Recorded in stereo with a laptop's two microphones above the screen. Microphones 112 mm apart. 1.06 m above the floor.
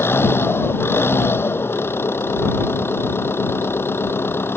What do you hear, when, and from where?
0.0 s an engine running: 20° left (ahead or behind)